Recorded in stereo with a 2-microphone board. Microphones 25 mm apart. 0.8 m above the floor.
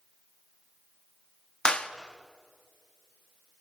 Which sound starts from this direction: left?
A clap, at 1.6 s.